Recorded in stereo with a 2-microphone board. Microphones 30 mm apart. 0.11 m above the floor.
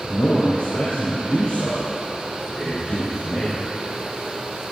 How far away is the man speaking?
About 4 m.